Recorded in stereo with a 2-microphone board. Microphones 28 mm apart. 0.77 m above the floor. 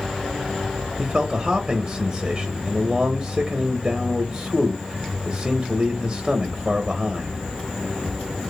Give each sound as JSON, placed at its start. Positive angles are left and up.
{"t": 1.0, "sound": "a man speaking", "side_deg": -25, "distance_m": 0.6}